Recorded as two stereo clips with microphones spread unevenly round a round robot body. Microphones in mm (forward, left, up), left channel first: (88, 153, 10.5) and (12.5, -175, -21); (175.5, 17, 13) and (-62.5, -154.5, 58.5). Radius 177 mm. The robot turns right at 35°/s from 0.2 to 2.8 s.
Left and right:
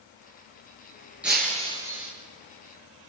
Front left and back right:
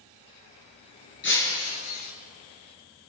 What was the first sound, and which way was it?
Breaking glass, 15° right.